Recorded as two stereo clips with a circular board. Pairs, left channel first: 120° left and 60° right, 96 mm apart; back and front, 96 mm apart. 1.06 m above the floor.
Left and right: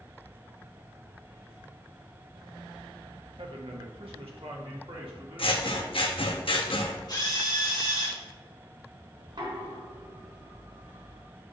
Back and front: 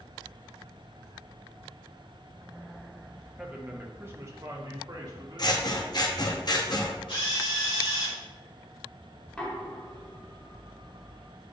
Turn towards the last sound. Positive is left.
turn(degrees=-100)